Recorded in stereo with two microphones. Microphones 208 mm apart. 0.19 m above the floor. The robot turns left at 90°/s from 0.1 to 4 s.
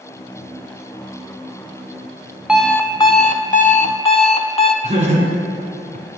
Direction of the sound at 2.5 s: 175° right.